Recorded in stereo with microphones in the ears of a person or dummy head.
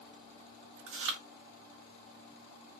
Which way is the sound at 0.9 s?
65° right (ahead or behind).